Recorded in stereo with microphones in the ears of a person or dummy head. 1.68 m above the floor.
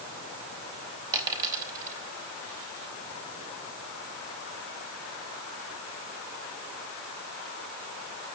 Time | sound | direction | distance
1.1 | a dropped coin | 20° right (ahead or behind) | 3.5 m